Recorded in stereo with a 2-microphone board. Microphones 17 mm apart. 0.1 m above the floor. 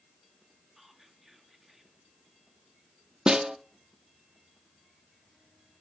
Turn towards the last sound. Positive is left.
turn(degrees=-60)  # may be behind; listen again after turning